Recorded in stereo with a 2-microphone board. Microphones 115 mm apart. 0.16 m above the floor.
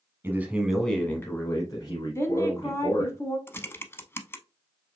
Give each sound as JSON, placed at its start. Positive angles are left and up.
{"t": 0.2, "sound": "a man speaking", "side_deg": -20, "distance_m": 1.2}
{"t": 2.1, "sound": "a woman speaking", "side_deg": 25, "distance_m": 1.1}
{"t": 3.5, "sound": "typing on a keyboard", "side_deg": 20, "distance_m": 0.6}